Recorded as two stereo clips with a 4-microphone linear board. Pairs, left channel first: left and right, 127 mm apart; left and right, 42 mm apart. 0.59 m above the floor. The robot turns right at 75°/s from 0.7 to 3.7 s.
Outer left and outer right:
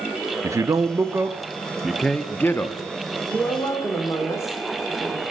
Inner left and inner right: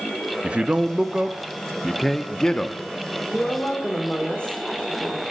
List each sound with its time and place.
0.4 s a man speaking: 25° right (ahead or behind), 0.6 m; by 2.8 s 20° left (ahead or behind), 0.6 m
3.3 s a woman speaking: 5° right, 1.7 m; by 5.2 s 25° left, 1.7 m